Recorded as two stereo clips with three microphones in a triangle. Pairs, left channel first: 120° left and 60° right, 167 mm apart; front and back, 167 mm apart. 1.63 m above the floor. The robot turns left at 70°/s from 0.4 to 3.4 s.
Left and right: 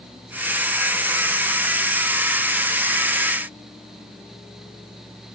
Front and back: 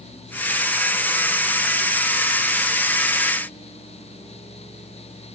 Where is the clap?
No clap in this recording.